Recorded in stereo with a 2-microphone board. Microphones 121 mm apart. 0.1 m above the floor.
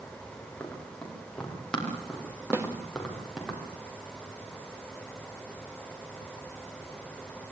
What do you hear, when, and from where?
0.6 s running footsteps: 10° left (ahead or behind), 9.5 m; by 3.5 s centre (ahead or behind), 8 m
2.5 s a snare drum: 20° right (ahead or behind), 2.5 m